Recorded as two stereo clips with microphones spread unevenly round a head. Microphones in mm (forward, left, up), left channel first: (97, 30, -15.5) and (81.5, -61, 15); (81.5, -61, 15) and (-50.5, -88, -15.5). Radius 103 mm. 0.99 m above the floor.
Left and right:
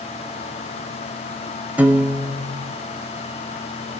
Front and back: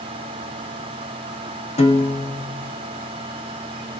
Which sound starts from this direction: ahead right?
A piano, at 1.8 s.